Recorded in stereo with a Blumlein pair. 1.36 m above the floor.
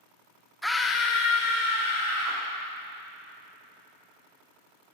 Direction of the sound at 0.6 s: 5° left.